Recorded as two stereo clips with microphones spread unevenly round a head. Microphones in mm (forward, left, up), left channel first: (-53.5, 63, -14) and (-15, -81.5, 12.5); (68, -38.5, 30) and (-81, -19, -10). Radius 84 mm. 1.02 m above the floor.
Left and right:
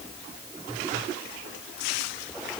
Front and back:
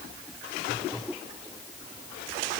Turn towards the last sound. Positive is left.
No sound to turn to.